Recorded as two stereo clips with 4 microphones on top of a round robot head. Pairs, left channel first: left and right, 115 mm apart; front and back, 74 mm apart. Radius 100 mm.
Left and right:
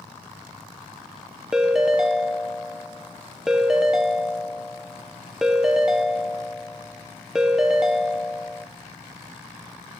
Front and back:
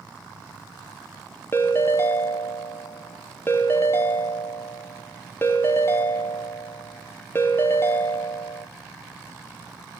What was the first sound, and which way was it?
A ringtone, 5° right.